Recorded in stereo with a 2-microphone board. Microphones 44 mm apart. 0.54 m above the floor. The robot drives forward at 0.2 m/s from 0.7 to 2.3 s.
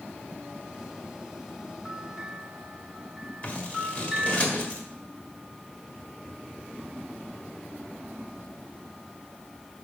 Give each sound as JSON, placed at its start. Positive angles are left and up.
{"t": 1.9, "sound": "a bell", "side_deg": 5, "distance_m": 2.0}
{"t": 3.4, "sound": "scissors", "side_deg": 30, "distance_m": 1.7}